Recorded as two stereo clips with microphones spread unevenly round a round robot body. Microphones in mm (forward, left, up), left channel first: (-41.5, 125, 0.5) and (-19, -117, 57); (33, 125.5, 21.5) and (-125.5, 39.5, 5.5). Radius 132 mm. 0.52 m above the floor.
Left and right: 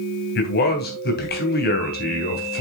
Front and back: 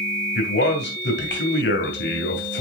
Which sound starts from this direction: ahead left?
A man speaking, at 0.3 s.